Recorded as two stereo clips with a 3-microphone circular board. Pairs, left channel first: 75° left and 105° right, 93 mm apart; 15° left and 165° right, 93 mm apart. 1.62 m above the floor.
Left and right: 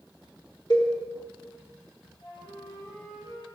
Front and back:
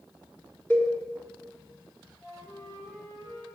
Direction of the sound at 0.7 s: 80° left.